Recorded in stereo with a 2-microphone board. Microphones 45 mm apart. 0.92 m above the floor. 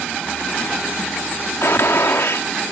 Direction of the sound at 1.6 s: 75° left (ahead or behind).